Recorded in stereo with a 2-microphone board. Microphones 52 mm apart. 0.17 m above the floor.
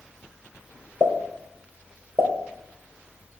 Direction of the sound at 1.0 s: 60° right (ahead or behind).